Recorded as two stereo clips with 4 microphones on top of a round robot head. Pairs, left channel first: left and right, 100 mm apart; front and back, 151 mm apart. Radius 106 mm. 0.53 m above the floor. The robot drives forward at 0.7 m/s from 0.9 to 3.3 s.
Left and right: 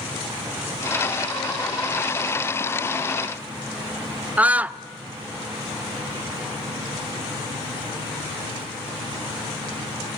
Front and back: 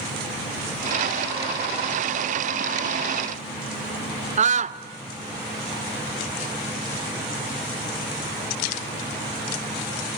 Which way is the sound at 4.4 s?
165° right.